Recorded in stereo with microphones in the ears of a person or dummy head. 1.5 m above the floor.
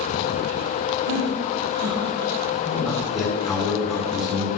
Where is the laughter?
75° right (ahead or behind), 3.5 m; by 2.3 s 85° right, 4.5 m.